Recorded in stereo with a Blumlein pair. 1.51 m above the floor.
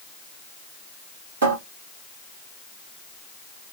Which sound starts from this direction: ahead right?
A cupboard door, at 1.4 s.